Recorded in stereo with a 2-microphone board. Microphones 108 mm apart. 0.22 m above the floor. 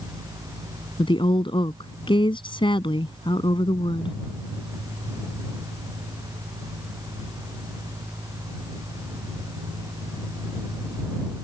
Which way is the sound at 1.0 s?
50° left (ahead or behind).